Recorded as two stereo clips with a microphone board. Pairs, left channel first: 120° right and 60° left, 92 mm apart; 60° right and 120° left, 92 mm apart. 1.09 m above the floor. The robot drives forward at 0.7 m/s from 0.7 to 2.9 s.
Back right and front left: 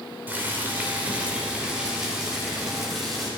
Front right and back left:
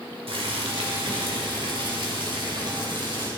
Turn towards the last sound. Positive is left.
turn(degrees=150)